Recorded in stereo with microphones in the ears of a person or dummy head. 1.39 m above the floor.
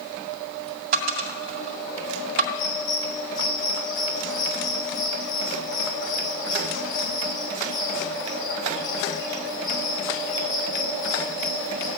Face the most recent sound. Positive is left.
turn(degrees=75)  # may be behind; listen again after turning